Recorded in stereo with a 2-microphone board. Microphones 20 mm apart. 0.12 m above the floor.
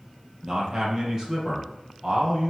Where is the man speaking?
30° right (ahead or behind), 3.5 m.